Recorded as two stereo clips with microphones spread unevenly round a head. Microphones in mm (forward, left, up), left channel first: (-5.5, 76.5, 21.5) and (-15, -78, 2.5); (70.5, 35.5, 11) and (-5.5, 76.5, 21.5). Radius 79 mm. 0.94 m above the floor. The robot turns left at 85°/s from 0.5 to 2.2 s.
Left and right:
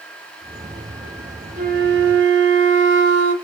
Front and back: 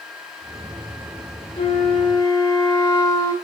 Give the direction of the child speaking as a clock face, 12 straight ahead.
I don't hear a child speaking.